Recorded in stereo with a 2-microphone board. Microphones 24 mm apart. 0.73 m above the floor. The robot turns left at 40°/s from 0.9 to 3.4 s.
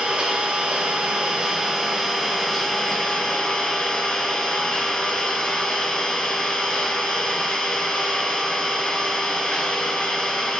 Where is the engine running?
130° right, 3.5 m; by 10.6 s 130° left, 3.5 m.